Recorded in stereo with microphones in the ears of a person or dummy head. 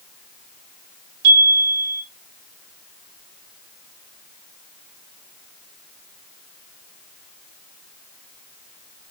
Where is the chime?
75° right (ahead or behind), 1.1 m.